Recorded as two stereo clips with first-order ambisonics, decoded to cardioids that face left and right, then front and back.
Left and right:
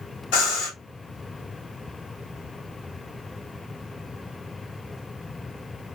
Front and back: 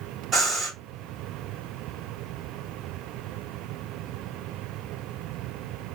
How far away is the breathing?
About 1.7 m.